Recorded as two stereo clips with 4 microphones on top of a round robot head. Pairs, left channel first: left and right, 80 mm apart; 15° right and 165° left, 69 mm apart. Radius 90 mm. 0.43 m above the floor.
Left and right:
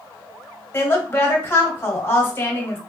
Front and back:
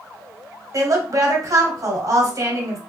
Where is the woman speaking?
150° left, 1.8 m.